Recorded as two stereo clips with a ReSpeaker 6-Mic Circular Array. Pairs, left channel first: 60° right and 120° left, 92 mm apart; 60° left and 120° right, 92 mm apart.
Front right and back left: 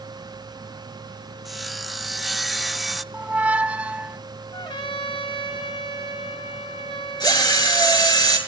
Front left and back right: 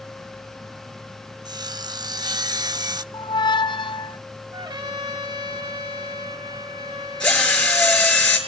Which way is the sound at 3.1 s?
45° left.